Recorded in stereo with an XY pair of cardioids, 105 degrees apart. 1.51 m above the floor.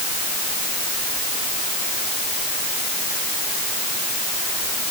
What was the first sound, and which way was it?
Only background noise.